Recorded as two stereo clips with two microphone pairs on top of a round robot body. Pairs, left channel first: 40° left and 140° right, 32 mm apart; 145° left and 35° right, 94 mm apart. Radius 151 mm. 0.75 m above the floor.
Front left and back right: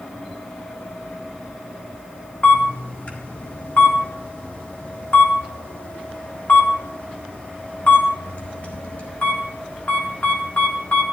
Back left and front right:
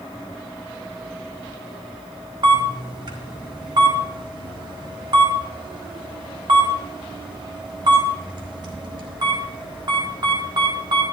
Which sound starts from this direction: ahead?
A camera shutter, at 2.4 s.